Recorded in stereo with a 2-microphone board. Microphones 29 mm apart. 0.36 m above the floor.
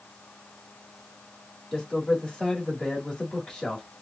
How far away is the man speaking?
About 1.6 m.